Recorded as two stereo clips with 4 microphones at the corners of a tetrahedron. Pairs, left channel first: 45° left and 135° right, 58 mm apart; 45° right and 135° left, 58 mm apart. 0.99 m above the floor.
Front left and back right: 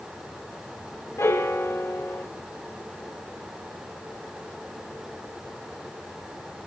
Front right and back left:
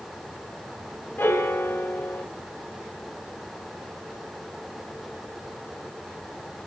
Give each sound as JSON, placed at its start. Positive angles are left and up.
{"t": 1.2, "sound": "a piano", "azimuth_deg": 5, "distance_m": 1.2}